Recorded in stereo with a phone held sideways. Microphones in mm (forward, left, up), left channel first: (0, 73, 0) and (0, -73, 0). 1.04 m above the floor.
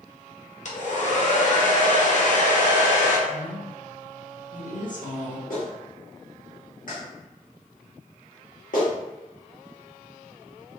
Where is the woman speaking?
60° left (ahead or behind), 0.8 m.